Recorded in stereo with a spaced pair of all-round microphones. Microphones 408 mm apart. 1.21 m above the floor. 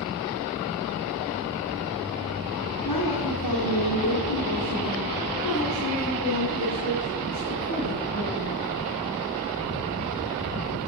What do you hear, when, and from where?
2.9 s a woman speaking: 65° left (ahead or behind), 3.5 m; by 8.7 s 45° left (ahead or behind), 8 m